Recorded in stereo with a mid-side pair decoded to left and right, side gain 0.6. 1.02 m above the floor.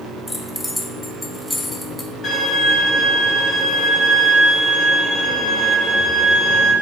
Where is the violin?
45° left, 1.6 m.